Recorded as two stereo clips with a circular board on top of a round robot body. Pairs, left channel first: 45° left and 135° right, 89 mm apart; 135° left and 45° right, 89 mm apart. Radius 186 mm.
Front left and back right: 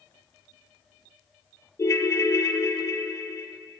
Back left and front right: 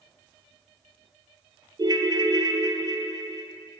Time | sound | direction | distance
1.8 | a ringtone | 10° right | 1.0 m